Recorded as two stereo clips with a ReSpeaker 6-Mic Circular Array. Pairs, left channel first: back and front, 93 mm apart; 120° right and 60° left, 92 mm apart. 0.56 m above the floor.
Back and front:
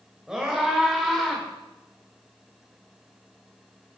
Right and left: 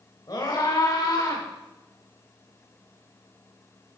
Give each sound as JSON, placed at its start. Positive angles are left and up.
{"t": 0.3, "sound": "a scream", "azimuth_deg": -80, "distance_m": 2.5}